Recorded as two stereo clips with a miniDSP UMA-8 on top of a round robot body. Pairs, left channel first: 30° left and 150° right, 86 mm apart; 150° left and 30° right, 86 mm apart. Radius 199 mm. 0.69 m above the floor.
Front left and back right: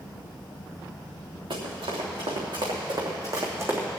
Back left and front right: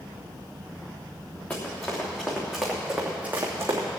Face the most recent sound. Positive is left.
turn(degrees=-80)